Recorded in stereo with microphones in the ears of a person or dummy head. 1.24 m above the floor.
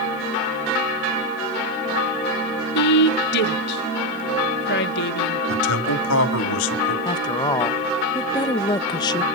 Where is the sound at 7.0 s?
25° left (ahead or behind), 0.8 m.